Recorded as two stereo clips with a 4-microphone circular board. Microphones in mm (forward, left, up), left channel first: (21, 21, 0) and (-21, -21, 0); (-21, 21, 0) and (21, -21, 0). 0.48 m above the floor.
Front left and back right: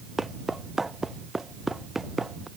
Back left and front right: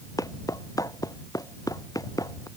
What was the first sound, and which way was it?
Footsteps, 140° left.